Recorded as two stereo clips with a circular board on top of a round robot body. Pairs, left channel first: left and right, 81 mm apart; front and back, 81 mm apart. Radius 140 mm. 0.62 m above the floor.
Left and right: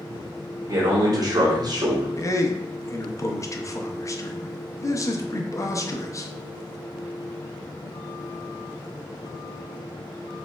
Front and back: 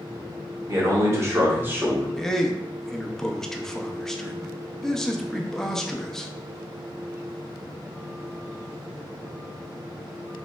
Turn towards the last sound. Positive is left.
turn(degrees=85)